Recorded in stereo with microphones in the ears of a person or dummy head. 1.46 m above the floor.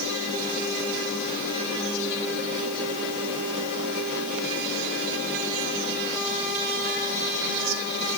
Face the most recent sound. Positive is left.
No sound to turn to.